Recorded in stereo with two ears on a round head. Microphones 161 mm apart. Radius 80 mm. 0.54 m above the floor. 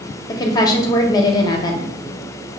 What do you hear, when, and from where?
0.3 s a woman speaking: 20° left (ahead or behind), 0.7 m